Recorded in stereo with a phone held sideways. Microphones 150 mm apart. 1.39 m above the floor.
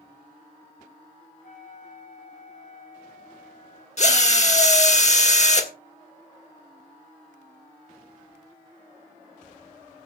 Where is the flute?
65° left (ahead or behind), 8 m.